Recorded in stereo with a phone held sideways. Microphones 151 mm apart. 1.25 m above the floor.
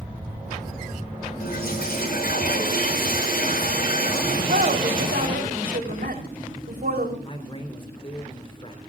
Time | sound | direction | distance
1.4 | a toilet flushing | 85° left | 5.5 m
4.3 | a woman speaking | 85° right | 4 m
7.2 | a man speaking | 35° left (ahead or behind) | 4 m